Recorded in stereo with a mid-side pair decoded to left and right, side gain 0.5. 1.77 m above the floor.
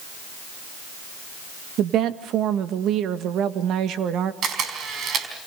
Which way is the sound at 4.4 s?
60° right.